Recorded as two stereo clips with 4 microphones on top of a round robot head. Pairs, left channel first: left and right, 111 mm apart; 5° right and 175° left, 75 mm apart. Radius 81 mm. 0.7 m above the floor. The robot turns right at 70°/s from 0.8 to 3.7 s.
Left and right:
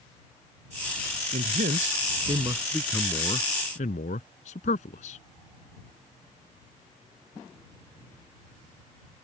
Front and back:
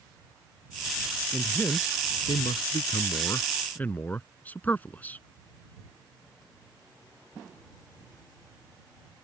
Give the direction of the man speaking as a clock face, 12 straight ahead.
3 o'clock.